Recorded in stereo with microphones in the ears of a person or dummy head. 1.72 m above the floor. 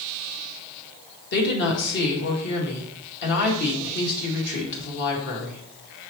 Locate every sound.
1.3 s a woman speaking: 60° left (ahead or behind), 2 m